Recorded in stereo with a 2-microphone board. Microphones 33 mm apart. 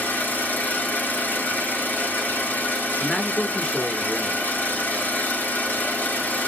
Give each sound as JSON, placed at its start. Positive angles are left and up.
{"t": 0.0, "sound": "an engine running", "side_deg": 75, "distance_m": 2.0}
{"t": 3.0, "sound": "a man speaking", "side_deg": 25, "distance_m": 1.2}